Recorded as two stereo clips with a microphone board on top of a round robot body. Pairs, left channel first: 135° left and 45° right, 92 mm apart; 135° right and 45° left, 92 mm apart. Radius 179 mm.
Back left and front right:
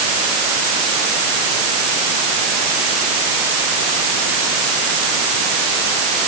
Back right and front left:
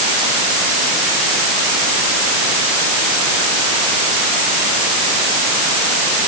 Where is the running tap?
No running tap in this recording.